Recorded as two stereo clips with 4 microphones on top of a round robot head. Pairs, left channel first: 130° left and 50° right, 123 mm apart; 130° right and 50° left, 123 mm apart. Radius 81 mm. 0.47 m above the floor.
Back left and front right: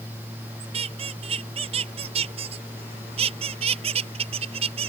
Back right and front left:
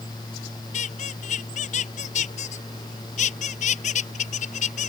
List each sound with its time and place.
0.7 s a squeak: 95° right